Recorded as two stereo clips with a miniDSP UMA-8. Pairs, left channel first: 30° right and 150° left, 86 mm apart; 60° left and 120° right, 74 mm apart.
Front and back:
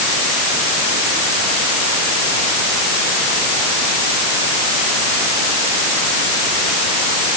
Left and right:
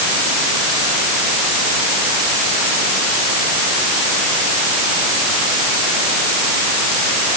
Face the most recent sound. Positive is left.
No sound to turn to.